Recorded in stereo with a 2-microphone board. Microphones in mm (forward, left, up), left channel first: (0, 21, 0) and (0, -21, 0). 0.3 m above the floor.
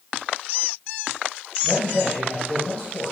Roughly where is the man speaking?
Left.